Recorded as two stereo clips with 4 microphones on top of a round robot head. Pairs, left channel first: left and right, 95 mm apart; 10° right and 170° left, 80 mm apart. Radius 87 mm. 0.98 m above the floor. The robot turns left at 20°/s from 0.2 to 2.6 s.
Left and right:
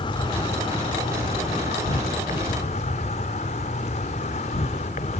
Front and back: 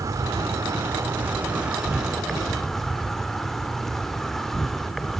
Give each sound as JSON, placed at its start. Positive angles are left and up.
{"t": 0.0, "sound": "an insect", "azimuth_deg": 120, "distance_m": 1.0}